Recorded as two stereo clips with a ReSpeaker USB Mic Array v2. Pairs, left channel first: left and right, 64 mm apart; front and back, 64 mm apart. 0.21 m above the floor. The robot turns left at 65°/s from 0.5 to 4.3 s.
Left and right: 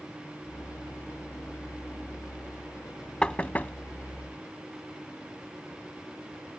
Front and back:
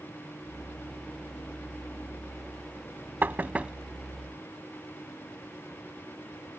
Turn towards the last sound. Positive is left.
turn(degrees=85)